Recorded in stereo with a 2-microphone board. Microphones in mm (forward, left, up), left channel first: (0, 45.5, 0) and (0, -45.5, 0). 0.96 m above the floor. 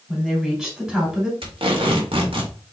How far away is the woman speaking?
About 2.5 m.